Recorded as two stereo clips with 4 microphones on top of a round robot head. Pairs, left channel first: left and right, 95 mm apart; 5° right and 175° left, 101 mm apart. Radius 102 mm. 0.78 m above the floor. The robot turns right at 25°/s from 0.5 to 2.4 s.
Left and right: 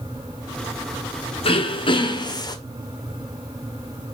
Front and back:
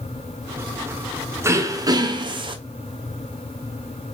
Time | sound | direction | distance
1.4 | throat clearing | 110° left | 1.7 m